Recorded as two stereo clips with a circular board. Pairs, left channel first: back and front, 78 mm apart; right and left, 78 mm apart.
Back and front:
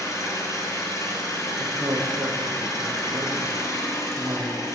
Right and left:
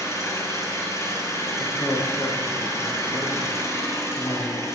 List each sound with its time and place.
0.0 s an engine running: 140° right, 3 m
1.6 s a man speaking: 30° right, 4.5 m